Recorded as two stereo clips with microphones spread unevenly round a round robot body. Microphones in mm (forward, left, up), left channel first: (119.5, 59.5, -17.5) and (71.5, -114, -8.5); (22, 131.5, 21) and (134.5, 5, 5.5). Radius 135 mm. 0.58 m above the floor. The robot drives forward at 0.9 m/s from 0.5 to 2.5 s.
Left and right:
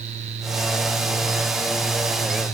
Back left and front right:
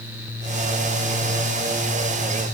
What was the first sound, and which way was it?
Only background noise.